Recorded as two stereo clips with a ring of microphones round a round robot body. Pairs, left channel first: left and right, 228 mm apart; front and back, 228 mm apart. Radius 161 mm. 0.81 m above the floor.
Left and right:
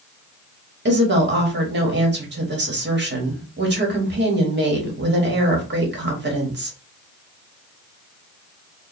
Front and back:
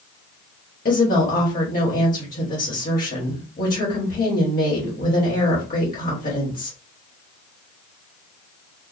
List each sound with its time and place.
0.8 s a woman speaking: 55° right, 1.8 m